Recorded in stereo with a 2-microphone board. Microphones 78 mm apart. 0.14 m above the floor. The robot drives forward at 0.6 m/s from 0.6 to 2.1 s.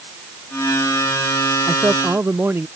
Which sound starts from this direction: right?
A man speaking, at 1.7 s.